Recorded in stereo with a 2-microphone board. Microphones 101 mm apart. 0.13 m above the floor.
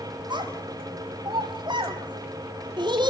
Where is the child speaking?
45° right (ahead or behind), 2.5 m.